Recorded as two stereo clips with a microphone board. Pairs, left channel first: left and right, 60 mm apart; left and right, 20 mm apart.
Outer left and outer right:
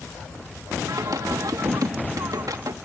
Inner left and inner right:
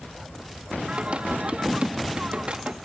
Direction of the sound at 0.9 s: 80° right.